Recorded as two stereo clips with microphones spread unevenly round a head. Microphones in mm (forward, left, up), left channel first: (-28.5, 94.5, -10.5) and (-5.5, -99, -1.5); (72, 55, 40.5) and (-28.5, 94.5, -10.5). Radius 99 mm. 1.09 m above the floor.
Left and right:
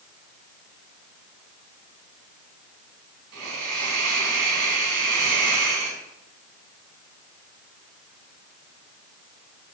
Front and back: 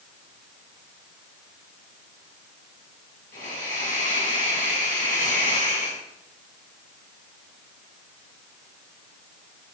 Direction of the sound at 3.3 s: 65° right.